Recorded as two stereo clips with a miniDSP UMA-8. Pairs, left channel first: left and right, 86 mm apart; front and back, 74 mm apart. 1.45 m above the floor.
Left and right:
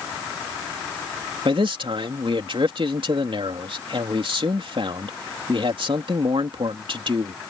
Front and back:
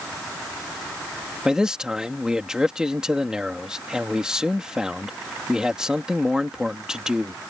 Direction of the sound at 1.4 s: 100° right.